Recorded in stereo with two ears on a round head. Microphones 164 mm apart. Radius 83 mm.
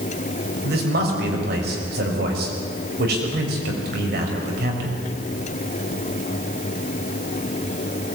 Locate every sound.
0.6 s a man speaking: 55° right (ahead or behind), 6.5 m